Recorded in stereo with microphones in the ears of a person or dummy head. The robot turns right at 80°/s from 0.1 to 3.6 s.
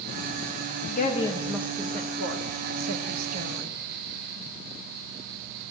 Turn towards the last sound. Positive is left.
turn(degrees=-20)  # may be behind; listen again after turning